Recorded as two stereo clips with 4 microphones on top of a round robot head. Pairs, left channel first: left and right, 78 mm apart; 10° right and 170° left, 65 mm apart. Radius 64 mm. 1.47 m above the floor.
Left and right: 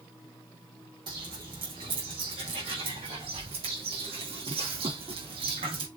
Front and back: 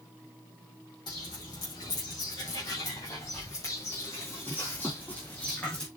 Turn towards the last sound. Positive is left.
turn(degrees=-90)